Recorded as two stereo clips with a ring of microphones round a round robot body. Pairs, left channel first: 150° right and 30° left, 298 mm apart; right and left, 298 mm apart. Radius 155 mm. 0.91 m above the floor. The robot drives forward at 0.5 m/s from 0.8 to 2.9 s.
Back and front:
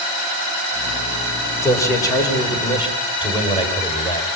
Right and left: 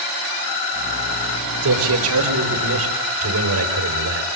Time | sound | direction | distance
1.6 | a man speaking | 130° left | 4 m